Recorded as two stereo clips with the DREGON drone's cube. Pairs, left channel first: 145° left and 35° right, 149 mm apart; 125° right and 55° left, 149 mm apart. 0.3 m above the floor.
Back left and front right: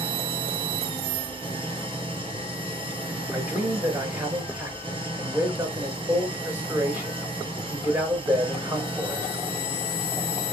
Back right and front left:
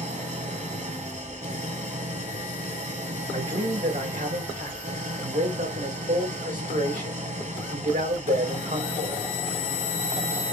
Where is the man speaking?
40° left, 3.5 m.